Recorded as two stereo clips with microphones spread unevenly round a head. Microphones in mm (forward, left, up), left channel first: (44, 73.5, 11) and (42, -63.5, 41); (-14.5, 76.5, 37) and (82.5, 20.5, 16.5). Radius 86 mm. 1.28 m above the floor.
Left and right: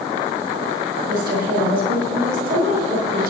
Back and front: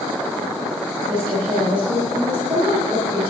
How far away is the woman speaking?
About 5.5 m.